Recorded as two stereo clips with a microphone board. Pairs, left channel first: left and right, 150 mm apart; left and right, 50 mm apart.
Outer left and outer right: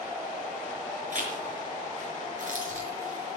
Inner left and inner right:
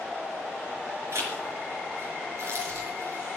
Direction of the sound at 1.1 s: 55° right (ahead or behind).